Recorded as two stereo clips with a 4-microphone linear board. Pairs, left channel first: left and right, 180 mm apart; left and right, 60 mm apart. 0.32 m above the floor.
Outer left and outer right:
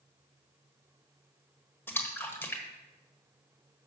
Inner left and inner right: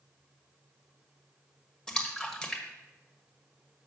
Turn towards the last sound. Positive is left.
turn(degrees=10)  # may be behind; listen again after turning